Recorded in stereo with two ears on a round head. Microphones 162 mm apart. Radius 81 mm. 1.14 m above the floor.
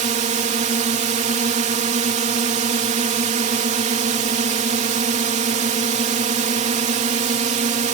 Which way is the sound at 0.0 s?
35° right (ahead or behind).